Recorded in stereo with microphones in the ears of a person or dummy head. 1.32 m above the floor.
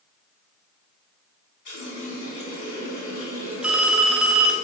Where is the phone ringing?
5° right (ahead or behind), 0.7 m.